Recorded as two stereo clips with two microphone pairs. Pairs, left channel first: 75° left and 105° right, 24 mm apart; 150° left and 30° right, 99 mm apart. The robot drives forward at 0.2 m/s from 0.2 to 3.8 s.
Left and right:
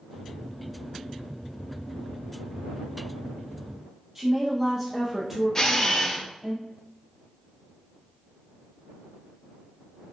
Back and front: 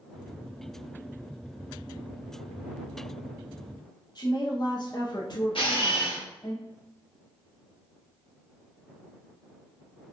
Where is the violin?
No violin in this recording.